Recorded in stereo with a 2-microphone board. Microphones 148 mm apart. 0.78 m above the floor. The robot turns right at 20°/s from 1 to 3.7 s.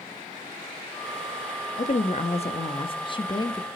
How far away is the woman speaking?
About 1.1 m.